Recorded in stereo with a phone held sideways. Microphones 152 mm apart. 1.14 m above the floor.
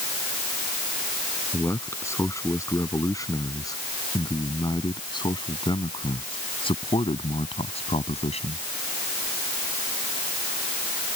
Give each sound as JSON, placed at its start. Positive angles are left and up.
{"t": 1.5, "sound": "a man speaking", "side_deg": 20}